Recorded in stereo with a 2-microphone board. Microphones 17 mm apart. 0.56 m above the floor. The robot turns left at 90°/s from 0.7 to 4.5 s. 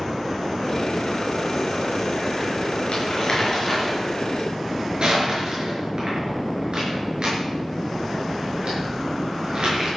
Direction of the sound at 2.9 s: 75° left (ahead or behind).